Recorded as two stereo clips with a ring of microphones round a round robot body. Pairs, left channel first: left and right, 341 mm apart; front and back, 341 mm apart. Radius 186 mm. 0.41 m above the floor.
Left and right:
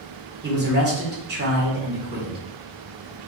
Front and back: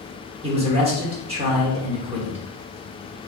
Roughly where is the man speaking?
Behind right.